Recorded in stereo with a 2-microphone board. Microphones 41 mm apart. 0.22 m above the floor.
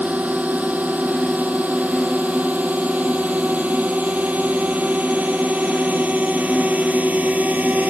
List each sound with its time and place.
0.0 s a drone: 40° right (ahead or behind)